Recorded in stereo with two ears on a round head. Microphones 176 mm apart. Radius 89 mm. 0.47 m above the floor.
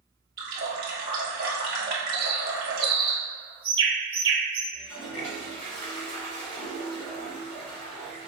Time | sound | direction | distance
0.4 | a running tap | 45° right (ahead or behind) | 1.2 m
2.1 | a bird | 25° right (ahead or behind) | 0.9 m
4.7 | a toilet flushing | 35° left (ahead or behind) | 1.7 m